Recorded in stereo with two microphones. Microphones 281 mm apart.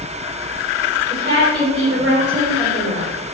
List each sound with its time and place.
1.1 s a woman speaking: 30° right (ahead or behind), 1.6 m; by 3.1 s 35° right (ahead or behind), 1.8 m